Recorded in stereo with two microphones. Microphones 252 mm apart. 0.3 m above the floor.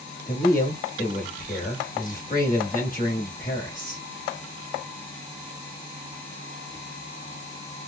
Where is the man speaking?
35° left (ahead or behind), 1.1 m.